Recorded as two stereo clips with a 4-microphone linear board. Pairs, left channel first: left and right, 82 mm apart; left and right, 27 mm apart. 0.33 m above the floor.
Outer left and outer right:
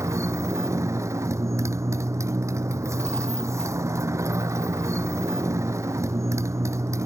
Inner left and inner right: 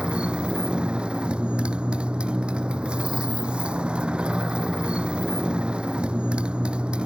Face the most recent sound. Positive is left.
turn(degrees=-40)  # may be behind; listen again after turning